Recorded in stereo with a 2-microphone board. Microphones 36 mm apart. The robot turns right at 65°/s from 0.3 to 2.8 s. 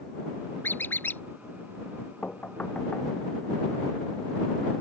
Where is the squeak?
80° left; by 1.2 s 115° left.